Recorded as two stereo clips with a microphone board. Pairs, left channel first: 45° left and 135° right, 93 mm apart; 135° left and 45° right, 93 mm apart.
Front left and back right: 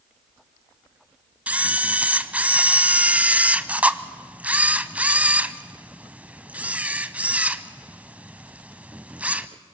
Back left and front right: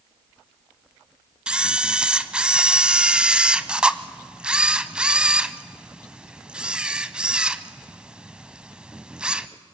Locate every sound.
1.5 s a camera shutter: 100° right, 0.7 m